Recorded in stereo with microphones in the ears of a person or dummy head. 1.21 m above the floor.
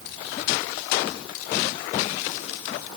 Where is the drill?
No drill in this recording.